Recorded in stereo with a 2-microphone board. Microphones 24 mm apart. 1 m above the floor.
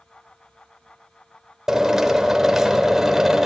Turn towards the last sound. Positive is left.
turn(degrees=-20)  # may be behind; listen again after turning